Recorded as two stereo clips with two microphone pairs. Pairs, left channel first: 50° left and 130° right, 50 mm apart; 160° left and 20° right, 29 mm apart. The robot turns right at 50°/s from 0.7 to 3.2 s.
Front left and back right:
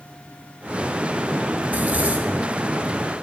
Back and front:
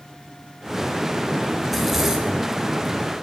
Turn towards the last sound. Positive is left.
turn(degrees=-35)